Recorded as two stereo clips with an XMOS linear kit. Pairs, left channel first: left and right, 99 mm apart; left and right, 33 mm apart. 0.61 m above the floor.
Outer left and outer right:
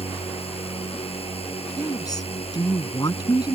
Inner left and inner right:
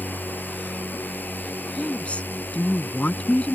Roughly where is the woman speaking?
Left.